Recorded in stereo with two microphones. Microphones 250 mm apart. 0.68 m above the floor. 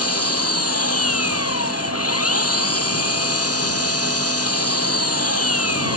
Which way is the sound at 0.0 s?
70° left (ahead or behind).